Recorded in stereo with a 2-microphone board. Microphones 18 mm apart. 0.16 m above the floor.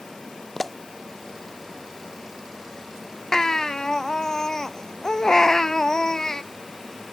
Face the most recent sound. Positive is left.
turn(degrees=35)  # may be behind; listen again after turning